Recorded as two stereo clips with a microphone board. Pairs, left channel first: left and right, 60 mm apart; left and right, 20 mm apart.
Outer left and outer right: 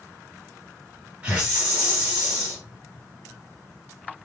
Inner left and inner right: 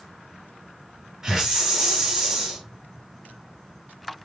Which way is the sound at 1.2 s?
20° right (ahead or behind).